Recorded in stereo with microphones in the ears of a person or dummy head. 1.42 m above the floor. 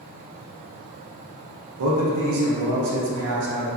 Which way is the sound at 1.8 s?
70° right (ahead or behind).